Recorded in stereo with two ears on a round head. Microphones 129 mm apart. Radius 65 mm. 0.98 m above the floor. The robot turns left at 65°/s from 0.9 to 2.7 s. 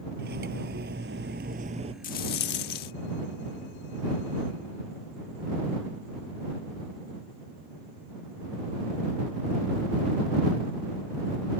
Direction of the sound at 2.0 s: 115° left.